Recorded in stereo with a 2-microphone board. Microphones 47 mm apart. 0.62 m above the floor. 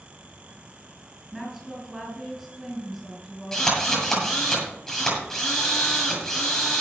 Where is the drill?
10° left (ahead or behind), 8.5 m.